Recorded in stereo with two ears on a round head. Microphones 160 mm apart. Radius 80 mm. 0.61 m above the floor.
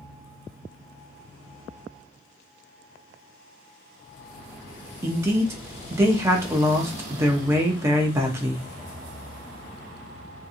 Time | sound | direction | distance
5.0 | a man speaking | 15° right (ahead or behind) | 0.6 m